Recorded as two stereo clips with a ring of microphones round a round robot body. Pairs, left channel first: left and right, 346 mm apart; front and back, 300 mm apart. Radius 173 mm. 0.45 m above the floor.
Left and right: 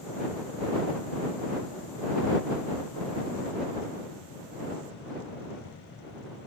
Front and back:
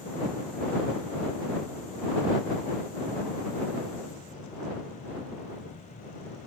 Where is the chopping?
I don't hear chopping.